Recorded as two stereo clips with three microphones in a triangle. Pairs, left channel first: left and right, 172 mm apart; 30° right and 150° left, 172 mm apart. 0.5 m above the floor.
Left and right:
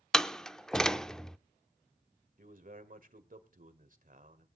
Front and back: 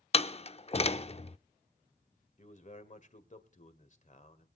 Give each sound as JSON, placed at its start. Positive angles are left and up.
{"t": 0.1, "sound": "a door slam", "azimuth_deg": 5, "distance_m": 0.5}
{"t": 2.4, "sound": "a man speaking", "azimuth_deg": -65, "distance_m": 1.8}